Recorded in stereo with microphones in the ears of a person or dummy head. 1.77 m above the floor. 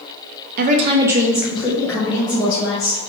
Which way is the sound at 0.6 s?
45° right (ahead or behind).